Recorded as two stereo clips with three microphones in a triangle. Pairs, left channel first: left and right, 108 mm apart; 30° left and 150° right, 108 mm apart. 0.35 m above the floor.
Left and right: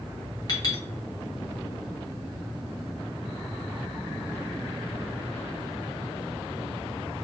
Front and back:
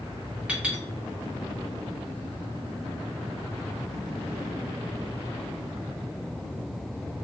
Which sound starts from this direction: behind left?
A clink, at 0.5 s.